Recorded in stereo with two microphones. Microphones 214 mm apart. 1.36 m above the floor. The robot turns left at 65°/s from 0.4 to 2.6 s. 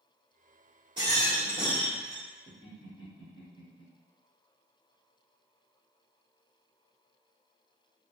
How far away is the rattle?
About 1.1 m.